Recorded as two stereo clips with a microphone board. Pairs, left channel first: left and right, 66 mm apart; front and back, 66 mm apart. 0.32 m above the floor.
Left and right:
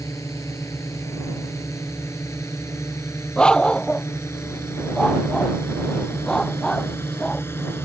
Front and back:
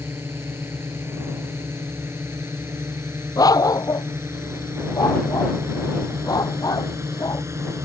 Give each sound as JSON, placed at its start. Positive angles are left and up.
{"t": 0.0, "sound": "a drone", "azimuth_deg": 130}
{"t": 3.4, "sound": "a dog barking", "azimuth_deg": 15}